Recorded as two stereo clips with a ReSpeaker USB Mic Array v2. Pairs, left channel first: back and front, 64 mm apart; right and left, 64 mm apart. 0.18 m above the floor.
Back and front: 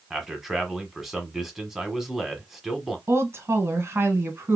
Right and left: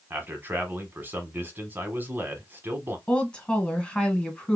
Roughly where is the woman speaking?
Ahead.